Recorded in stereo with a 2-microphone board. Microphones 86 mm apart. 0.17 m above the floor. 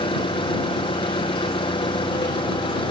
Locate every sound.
0.0 s an engine running: 80° left